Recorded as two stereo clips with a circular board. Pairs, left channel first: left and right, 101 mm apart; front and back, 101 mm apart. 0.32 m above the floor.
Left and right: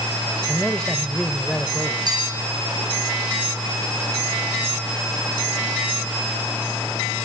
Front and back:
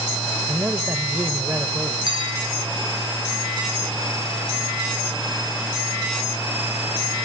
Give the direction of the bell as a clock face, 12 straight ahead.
5 o'clock.